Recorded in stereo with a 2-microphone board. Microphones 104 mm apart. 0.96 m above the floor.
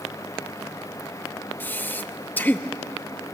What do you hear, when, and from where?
1.6 s breathing: 15° left (ahead or behind), 0.7 m